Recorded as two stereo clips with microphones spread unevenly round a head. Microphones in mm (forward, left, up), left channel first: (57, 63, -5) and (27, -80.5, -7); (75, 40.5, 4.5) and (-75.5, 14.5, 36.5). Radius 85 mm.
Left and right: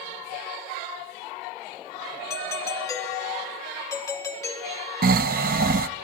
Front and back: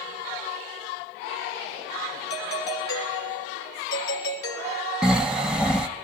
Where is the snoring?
90° right, 1.0 m.